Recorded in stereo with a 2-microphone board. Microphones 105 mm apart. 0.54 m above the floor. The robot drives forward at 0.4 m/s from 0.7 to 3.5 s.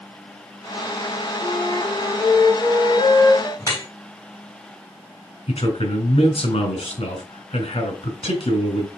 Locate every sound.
1.4 s a flute: 55° left (ahead or behind), 4 m; by 3.5 s 45° left (ahead or behind), 4.5 m
3.6 s dripping: 30° left (ahead or behind), 2.5 m
5.5 s a man speaking: 70° left (ahead or behind), 2.5 m